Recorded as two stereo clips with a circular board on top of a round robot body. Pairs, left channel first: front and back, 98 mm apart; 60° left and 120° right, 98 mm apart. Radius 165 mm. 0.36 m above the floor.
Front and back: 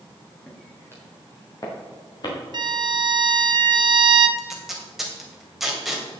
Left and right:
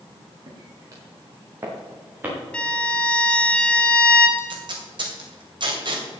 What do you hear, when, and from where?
0.5 s footsteps: 75° right, 3.5 m; by 2.4 s 45° right, 5 m
2.5 s a violin: 140° left, 1.2 m
4.4 s tape being pulled: 95° right, 3 m